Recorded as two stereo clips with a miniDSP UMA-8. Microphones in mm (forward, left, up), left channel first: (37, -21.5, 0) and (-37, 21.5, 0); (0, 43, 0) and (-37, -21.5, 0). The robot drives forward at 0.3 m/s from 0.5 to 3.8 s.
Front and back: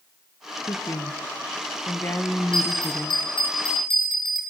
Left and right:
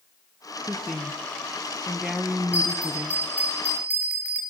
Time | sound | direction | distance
0.7 | a woman speaking | 25° right | 1.4 m
2.5 | a bell | 50° right | 6.5 m